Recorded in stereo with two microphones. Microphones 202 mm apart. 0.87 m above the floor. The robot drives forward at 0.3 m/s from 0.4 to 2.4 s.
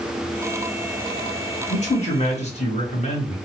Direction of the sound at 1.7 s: 35° left (ahead or behind).